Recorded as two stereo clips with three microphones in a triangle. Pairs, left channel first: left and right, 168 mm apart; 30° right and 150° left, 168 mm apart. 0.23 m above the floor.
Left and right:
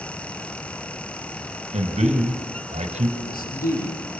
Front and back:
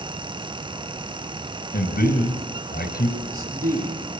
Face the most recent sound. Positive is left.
turn(degrees=115)